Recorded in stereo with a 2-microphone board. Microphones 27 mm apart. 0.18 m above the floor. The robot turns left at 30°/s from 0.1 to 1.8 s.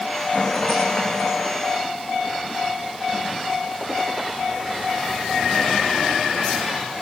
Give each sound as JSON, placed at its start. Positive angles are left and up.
{"t": 0.3, "sound": "a rattle", "azimuth_deg": 155, "distance_m": 9.0}